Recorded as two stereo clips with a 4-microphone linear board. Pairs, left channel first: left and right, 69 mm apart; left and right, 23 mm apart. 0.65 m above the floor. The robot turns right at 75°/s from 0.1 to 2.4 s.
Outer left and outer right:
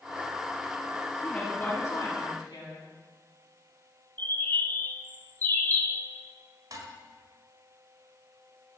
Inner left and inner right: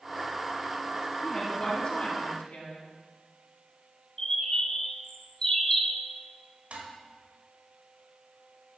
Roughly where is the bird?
Left.